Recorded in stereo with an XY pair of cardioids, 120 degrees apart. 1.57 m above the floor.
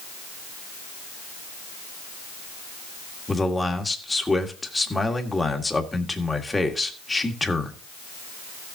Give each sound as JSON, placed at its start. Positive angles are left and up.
{"t": 3.3, "sound": "a man speaking", "azimuth_deg": 15, "distance_m": 1.7}